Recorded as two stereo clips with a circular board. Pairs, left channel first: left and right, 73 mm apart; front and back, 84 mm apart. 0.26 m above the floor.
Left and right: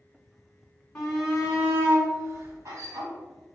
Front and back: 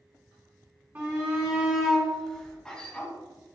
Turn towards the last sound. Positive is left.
turn(degrees=-75)